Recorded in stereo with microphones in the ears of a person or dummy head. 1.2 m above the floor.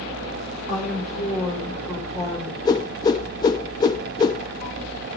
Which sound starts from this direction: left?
A whoosh, at 2.6 s.